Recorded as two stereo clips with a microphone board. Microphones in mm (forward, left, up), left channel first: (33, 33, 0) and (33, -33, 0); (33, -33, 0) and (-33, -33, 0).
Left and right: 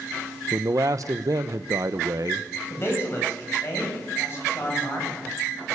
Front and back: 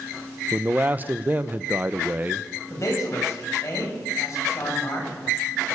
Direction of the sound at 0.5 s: 115° right.